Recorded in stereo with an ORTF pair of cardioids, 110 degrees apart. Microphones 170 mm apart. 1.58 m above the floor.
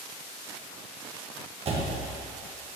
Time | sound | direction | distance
1.6 | a door slam | 35° right | 1.5 m